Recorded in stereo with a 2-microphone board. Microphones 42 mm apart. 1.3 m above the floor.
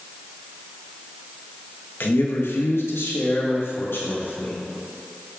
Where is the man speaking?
60° left (ahead or behind), 1.7 m; by 4.6 s 65° left (ahead or behind), 3.5 m.